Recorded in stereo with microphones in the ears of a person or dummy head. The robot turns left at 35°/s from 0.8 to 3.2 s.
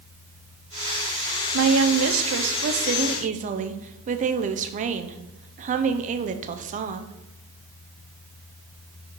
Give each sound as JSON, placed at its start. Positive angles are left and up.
{"t": 1.5, "sound": "a woman speaking", "azimuth_deg": -80, "distance_m": 0.6}